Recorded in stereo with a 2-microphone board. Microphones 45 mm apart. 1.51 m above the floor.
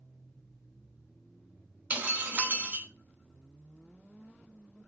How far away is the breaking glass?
About 1.3 m.